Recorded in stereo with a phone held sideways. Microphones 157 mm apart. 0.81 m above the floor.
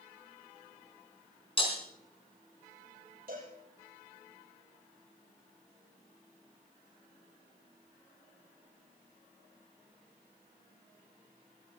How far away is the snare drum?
No snare drum in this recording.